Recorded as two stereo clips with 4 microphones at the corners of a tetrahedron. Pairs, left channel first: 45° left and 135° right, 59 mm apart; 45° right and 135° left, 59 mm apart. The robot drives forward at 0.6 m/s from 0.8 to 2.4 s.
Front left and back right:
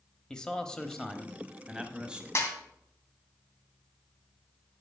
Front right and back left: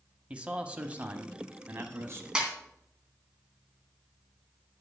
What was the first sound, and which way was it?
A man speaking, 105° left.